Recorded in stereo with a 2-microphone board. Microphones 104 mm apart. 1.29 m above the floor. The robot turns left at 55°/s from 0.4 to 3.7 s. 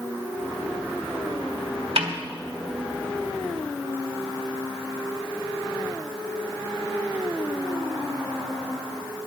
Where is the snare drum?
80° right, 1.9 m; by 2.1 s 75° right (ahead or behind), 1.9 m.